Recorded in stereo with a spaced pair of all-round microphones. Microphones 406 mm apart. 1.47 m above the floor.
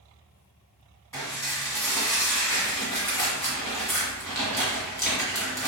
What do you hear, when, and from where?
1.1 s dishes clattering: 5° left (ahead or behind), 1.6 m